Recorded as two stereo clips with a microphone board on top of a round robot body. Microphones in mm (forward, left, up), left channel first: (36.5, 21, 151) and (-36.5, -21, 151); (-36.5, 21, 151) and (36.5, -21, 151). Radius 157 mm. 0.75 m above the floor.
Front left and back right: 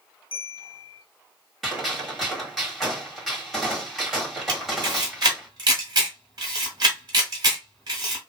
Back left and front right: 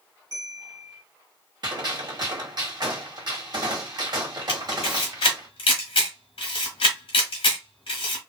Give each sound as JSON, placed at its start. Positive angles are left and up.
{"t": 0.3, "sound": "a bell", "azimuth_deg": 10, "distance_m": 1.1}
{"t": 1.6, "sound": "a gunshot", "azimuth_deg": -60, "distance_m": 1.8}
{"t": 4.5, "sound": "a camera shutter", "azimuth_deg": 165, "distance_m": 1.0}